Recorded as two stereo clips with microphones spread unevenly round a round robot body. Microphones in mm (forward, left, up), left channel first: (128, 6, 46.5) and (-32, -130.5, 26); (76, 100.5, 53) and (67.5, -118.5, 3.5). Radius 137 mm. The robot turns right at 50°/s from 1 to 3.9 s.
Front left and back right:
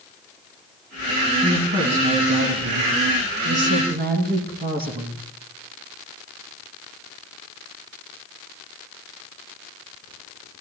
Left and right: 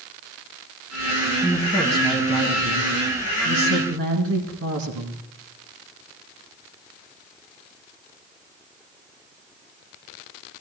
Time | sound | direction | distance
1.4 | a woman speaking | 135° left | 3.5 m